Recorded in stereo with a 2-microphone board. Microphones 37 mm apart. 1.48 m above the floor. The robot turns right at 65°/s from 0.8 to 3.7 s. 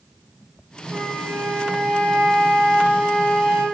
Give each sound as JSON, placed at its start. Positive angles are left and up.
{"t": 0.9, "sound": "a flute", "azimuth_deg": -150, "distance_m": 2.5}